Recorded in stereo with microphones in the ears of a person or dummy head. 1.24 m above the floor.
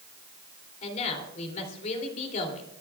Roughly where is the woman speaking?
Left.